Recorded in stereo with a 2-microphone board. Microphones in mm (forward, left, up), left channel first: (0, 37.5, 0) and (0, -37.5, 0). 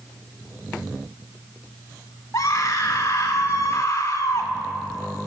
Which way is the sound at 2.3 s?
40° left (ahead or behind).